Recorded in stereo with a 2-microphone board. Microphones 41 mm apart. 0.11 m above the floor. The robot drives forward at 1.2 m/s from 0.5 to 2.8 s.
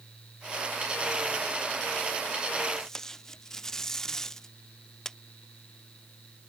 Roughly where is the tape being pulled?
Centre.